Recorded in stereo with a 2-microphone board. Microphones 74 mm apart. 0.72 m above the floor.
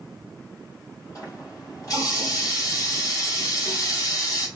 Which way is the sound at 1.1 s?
50° left (ahead or behind).